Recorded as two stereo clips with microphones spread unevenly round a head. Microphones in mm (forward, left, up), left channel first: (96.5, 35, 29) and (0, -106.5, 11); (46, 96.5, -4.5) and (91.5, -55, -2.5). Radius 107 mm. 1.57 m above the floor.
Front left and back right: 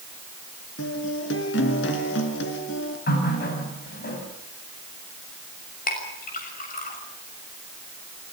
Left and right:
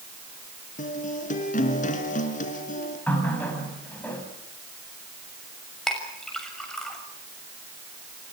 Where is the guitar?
75° left, 4 m.